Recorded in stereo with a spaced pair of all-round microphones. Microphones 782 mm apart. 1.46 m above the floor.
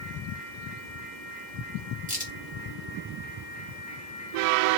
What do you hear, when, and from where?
2.1 s a crack: 10° right (ahead or behind), 1.9 m